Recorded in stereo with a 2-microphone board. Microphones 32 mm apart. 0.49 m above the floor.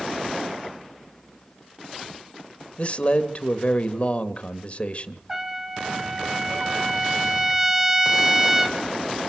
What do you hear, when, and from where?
2.8 s a man speaking: 40° left (ahead or behind), 1.7 m
5.3 s a trumpet: 15° right (ahead or behind), 2.5 m